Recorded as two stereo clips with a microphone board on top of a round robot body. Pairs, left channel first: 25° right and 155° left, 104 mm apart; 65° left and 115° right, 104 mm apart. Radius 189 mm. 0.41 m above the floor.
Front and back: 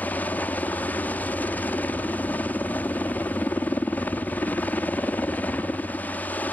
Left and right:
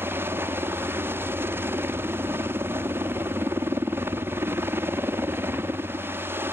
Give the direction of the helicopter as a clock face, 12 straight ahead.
3 o'clock.